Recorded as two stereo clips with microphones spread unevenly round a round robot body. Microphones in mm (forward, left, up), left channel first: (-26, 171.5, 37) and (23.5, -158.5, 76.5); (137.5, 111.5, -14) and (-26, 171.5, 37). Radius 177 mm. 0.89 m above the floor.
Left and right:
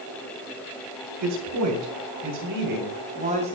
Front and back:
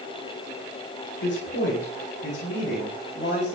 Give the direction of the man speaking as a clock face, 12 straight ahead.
2 o'clock.